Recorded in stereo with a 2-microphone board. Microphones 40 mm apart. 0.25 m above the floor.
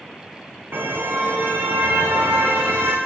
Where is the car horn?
70° right (ahead or behind), 6.5 m; by 3.0 s 80° right, 9 m.